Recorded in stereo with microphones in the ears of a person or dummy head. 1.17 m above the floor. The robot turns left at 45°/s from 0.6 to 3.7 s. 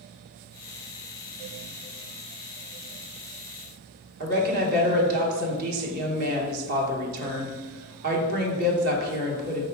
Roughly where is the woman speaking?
Right.